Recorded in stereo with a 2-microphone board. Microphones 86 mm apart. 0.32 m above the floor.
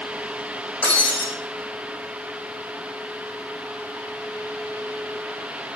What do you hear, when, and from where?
0.8 s breaking glass: 15° left (ahead or behind), 7.5 m